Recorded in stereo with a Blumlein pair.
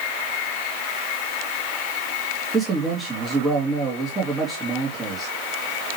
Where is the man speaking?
15° right, 3 m.